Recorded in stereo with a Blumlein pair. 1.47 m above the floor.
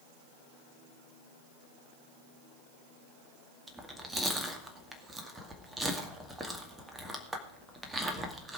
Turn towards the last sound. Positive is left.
turn(degrees=-10)